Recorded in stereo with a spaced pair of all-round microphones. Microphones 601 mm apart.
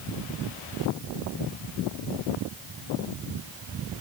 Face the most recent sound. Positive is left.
No sound to turn to.